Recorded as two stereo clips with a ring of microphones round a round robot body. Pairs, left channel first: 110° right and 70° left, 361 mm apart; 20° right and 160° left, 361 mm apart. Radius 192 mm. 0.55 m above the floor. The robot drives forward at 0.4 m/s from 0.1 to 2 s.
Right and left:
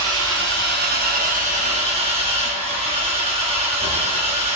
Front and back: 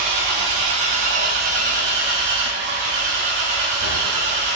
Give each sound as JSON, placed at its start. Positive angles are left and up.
{"t": 0.0, "sound": "an engine running", "azimuth_deg": 125, "distance_m": 1.4}